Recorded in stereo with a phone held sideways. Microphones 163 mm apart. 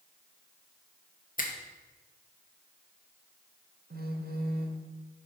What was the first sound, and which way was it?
A finger snap, 55° left (ahead or behind).